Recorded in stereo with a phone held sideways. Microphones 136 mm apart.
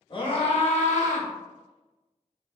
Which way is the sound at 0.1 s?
35° left (ahead or behind).